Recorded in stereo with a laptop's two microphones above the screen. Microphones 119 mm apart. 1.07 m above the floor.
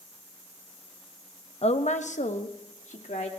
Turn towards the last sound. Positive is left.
turn(degrees=70)  # may be behind; listen again after turning